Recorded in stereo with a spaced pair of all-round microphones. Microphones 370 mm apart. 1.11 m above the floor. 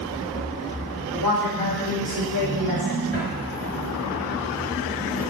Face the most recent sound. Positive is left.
turn(degrees=-20)  # may be behind; listen again after turning